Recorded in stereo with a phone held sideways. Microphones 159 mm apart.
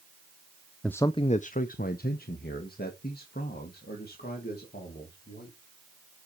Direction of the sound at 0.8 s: 5° left (ahead or behind).